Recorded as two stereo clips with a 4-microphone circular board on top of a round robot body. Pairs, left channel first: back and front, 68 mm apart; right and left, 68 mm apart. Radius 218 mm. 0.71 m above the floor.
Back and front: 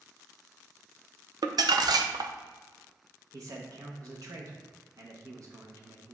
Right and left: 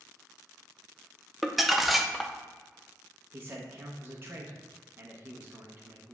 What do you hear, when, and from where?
1.4 s crumpling: straight ahead, 0.6 m
3.3 s a man speaking: 30° left, 0.9 m